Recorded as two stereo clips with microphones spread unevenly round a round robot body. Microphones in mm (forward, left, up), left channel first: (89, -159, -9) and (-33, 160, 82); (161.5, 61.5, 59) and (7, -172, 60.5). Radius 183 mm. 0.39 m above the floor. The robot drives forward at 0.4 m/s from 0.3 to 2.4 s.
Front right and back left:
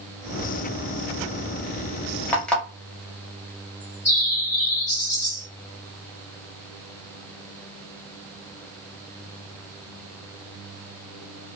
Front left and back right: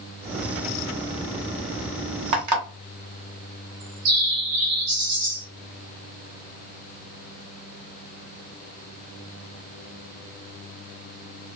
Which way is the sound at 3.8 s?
140° right.